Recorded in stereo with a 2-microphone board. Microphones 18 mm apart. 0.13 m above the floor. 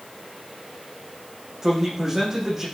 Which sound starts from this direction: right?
A man speaking, at 1.6 s.